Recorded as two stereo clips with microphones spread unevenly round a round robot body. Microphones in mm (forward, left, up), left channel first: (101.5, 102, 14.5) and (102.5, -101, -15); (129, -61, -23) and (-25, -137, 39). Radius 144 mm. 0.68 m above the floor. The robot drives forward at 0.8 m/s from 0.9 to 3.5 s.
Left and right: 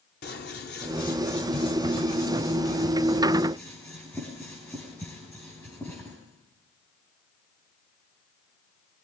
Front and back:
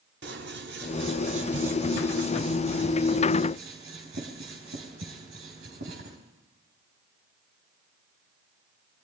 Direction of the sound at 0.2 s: 150° left.